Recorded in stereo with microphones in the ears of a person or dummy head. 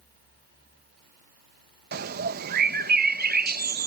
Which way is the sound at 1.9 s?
55° right (ahead or behind).